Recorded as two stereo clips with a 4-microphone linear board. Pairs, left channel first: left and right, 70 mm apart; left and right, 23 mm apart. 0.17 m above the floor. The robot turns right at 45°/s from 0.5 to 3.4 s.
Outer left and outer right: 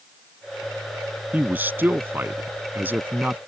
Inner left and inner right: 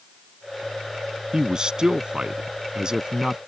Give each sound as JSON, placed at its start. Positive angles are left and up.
{"t": 1.3, "sound": "a man speaking", "azimuth_deg": -135}